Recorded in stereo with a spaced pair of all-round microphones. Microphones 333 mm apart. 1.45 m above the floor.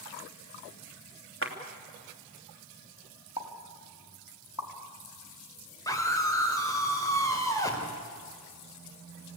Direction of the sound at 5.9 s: 10° left (ahead or behind).